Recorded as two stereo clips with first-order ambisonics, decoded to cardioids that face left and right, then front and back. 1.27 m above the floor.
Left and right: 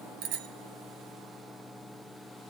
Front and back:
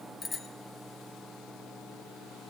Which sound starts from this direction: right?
A bicycle bell, at 0.2 s.